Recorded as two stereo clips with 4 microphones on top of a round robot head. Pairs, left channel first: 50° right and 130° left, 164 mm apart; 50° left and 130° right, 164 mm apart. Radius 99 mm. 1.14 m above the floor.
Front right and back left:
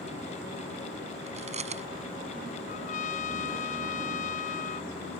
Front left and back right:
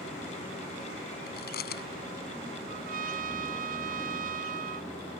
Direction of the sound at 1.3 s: 80° left.